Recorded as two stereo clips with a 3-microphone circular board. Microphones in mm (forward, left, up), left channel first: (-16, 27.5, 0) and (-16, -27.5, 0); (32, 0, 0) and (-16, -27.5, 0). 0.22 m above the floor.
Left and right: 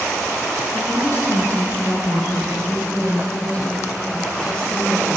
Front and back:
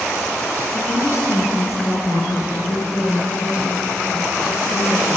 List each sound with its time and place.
0.8 s a woman speaking: 55° left, 3 m; by 5.2 s 15° left, 4.5 m